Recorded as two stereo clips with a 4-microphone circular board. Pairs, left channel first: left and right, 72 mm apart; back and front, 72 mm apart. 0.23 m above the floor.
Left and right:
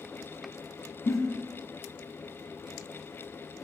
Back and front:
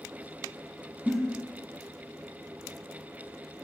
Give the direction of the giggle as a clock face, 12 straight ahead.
9 o'clock.